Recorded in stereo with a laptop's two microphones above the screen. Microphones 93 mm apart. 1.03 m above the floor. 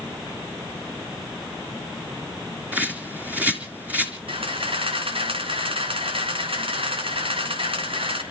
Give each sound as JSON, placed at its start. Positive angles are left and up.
{"t": 2.7, "sound": "a bird", "side_deg": -20, "distance_m": 3.5}
{"t": 4.3, "sound": "a camera shutter", "side_deg": -75, "distance_m": 3.0}